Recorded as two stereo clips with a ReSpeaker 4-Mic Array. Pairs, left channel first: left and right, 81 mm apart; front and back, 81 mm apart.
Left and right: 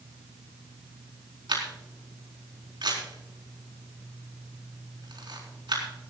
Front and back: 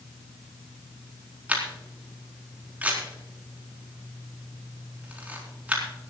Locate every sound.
1.5 s a camera shutter: 105° right, 4 m